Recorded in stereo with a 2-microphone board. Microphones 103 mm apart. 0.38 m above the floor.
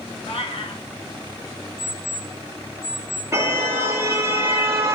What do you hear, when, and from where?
0.2 s a cat meowing: 70° left (ahead or behind), 2 m
1.8 s an alarm clock: 70° left (ahead or behind), 9.5 m
3.3 s a car horn: 25° right (ahead or behind), 4.5 m